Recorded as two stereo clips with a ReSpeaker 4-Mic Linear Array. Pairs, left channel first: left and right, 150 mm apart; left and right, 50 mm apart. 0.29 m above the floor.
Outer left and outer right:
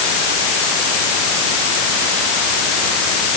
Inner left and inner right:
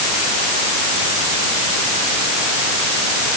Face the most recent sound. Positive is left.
No sound to turn to.